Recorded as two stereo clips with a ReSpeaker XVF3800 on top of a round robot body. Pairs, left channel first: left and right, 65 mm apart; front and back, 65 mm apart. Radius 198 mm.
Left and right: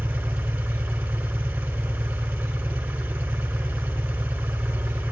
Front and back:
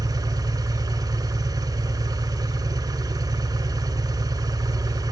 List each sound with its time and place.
0.0 s an engine running: 160° right, 1.8 m